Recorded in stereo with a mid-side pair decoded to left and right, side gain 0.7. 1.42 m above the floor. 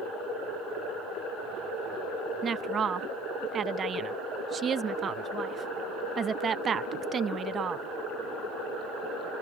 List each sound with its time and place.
2.4 s a woman speaking: 30° right